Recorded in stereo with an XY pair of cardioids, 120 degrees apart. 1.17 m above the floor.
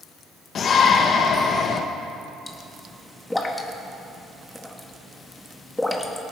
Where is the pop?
10° left, 1.4 m.